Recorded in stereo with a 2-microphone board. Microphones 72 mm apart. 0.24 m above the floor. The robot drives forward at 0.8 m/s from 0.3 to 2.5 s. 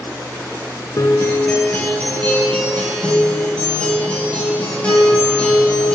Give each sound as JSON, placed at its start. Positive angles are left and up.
{"t": 1.0, "sound": "a guitar", "side_deg": 50, "distance_m": 0.5}